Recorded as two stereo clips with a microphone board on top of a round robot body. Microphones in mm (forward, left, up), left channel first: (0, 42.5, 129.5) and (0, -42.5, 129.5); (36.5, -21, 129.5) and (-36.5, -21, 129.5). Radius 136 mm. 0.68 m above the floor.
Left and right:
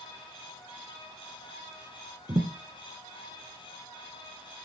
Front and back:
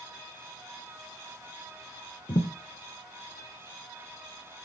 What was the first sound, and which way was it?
A thud, 40° right.